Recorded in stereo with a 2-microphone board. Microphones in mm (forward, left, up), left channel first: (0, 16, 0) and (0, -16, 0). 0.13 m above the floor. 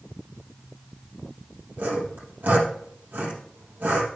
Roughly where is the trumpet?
No trumpet in this recording.